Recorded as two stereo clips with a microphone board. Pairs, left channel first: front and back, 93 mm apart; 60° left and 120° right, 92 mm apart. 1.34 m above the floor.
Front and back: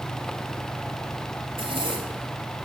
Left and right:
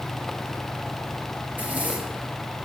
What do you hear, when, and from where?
1.5 s a zipper: 170° left, 2 m